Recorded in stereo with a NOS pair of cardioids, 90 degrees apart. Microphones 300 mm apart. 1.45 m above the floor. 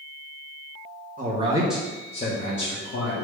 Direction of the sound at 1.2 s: 30° right.